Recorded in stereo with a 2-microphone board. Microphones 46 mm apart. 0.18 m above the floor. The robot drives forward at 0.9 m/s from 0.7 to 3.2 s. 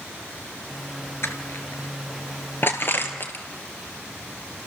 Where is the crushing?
65° left (ahead or behind), 2.5 m; by 3.4 s 45° left (ahead or behind), 3.5 m.